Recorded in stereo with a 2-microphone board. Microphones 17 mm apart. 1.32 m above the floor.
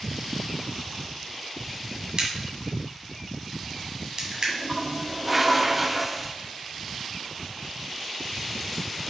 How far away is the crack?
About 1.8 m.